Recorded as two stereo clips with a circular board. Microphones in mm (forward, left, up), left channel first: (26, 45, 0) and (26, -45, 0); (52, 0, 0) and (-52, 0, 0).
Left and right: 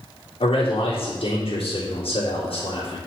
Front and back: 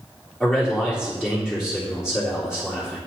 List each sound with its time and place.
0.4 s a man speaking: 95° left, 3 m